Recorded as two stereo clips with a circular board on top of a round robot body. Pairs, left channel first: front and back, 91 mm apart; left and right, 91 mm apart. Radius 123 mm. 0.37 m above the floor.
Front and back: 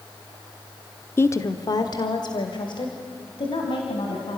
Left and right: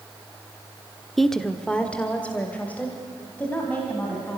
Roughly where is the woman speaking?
Ahead.